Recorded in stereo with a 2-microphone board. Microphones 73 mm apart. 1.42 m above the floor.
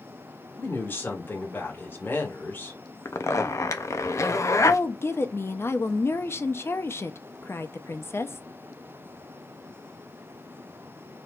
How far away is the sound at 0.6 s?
About 1.9 m.